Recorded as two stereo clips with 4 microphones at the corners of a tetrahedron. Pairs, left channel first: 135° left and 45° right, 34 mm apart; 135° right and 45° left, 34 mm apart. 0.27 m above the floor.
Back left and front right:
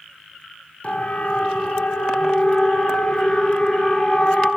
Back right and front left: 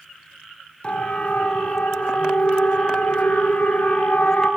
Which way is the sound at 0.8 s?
Straight behind.